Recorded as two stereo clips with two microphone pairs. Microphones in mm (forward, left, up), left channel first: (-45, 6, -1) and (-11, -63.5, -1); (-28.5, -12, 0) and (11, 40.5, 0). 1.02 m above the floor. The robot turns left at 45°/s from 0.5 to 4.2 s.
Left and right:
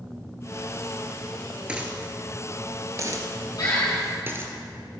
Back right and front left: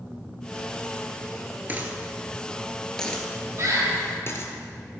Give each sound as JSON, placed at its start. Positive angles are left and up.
{"t": 1.7, "sound": "a dropped coin", "azimuth_deg": 5, "distance_m": 1.3}
{"t": 3.6, "sound": "a bird", "azimuth_deg": 90, "distance_m": 3.5}